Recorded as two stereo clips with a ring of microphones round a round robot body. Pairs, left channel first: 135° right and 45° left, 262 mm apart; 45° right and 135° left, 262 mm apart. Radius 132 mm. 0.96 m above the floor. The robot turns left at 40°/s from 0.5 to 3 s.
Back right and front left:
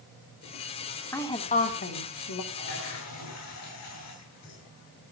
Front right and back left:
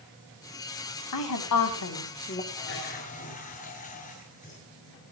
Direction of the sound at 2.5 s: 90° right.